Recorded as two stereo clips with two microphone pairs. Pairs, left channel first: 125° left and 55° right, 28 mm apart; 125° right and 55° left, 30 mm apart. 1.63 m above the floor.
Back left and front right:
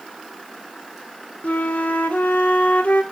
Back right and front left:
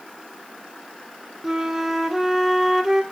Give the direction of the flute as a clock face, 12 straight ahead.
8 o'clock.